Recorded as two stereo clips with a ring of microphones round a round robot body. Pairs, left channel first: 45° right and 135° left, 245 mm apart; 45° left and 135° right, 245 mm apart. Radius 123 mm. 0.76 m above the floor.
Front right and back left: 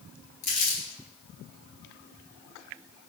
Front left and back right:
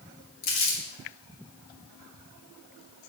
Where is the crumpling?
15° left, 2.5 m.